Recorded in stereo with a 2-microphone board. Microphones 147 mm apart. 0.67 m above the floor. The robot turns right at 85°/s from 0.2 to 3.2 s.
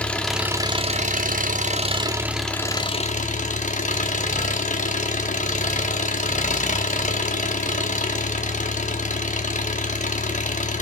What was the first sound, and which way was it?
An engine running, 170° left.